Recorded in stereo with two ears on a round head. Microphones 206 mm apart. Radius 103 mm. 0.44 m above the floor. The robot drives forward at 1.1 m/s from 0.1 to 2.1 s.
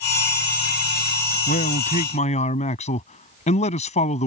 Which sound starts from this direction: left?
A man speaking, at 1.5 s.